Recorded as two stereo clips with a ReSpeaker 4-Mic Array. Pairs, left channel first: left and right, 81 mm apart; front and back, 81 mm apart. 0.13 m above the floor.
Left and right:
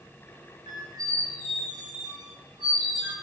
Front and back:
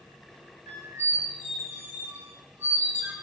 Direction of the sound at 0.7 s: 125° right.